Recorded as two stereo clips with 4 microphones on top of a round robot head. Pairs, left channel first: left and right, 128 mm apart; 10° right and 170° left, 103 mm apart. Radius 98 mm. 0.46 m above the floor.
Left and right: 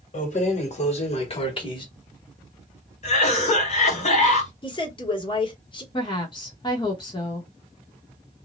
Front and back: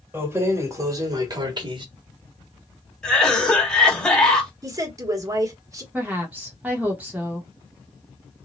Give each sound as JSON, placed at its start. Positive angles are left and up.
{"t": 0.1, "sound": "keys jangling", "azimuth_deg": 100, "distance_m": 1.7}
{"t": 3.0, "sound": "a cough", "azimuth_deg": 70, "distance_m": 2.0}
{"t": 4.6, "sound": "a woman speaking", "azimuth_deg": 125, "distance_m": 1.8}
{"t": 5.9, "sound": "a woman speaking", "azimuth_deg": 105, "distance_m": 1.1}